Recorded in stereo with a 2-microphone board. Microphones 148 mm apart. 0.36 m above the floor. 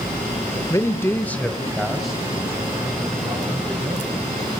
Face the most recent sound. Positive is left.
turn(degrees=-5)  # may be behind; listen again after turning